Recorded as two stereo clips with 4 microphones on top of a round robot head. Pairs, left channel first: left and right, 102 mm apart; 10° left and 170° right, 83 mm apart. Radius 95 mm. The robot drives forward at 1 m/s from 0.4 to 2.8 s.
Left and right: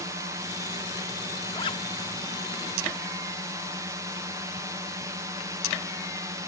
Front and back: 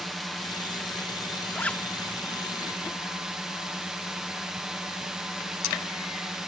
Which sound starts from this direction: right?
A drone, at 0.0 s.